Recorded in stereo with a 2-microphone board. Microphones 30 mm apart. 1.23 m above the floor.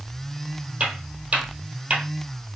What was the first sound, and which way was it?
Footsteps, 50° right (ahead or behind).